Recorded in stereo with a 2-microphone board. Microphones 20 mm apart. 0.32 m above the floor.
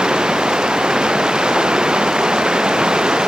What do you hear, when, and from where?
0.0 s running water: 55° right (ahead or behind)